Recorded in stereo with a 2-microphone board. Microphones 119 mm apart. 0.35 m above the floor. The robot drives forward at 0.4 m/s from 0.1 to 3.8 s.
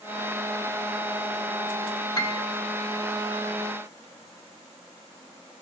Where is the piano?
35° left (ahead or behind), 0.7 m; by 2.4 s 45° left (ahead or behind), 0.6 m.